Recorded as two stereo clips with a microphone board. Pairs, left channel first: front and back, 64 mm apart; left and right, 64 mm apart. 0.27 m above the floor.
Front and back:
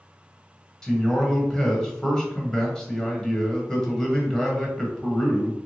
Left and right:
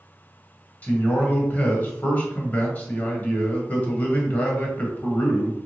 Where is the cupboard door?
No cupboard door in this recording.